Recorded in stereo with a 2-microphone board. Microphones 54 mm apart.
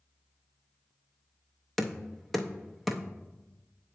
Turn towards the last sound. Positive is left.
turn(degrees=0)  # may be behind; listen again after turning